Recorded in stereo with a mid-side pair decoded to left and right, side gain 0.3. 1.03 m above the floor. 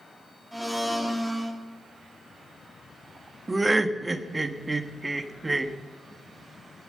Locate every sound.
0.5 s a blender: 5° right, 2 m
3.5 s laughter: 30° right, 1.2 m